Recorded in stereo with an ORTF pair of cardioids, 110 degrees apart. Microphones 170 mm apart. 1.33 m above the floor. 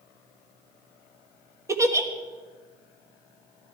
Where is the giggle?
15° right, 1.4 m.